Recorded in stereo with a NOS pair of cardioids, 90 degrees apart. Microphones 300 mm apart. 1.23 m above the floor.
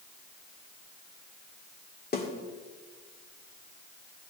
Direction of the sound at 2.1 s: 30° left.